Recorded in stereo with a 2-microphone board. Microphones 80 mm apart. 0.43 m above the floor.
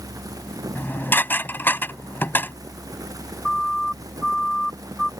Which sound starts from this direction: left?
Dishes clattering, at 0.8 s.